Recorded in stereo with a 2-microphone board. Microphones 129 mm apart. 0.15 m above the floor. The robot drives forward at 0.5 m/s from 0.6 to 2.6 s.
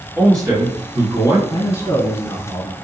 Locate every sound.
0.2 s a man speaking: 30° right (ahead or behind), 1.4 m; by 1.4 s 25° right (ahead or behind), 1.6 m
1.5 s a man speaking: 20° left (ahead or behind), 1.1 m